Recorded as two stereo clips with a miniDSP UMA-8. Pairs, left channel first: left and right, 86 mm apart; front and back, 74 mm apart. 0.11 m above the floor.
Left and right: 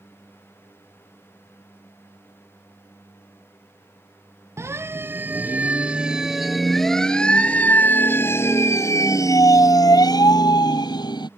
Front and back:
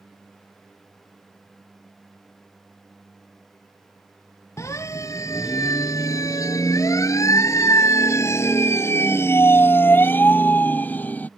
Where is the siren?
40° right; by 11.3 s 65° left.